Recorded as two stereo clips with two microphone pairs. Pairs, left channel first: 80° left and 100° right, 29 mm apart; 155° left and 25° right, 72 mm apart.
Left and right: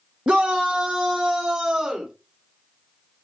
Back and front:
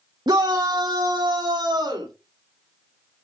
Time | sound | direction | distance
0.3 | a shout | 45° right | 0.7 m